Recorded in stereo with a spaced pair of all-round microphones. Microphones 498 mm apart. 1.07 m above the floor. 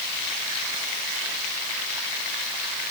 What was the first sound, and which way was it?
Only background noise.